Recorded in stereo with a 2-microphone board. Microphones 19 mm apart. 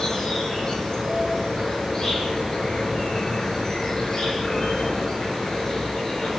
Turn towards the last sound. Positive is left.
turn(degrees=30)  # may be behind; listen again after turning